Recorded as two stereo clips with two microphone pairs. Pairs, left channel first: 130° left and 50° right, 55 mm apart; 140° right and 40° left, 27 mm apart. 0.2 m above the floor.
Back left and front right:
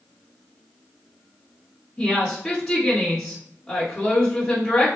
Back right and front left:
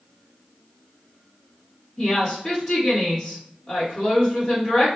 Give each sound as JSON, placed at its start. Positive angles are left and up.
{"t": 2.0, "sound": "a woman speaking", "azimuth_deg": -155, "distance_m": 1.5}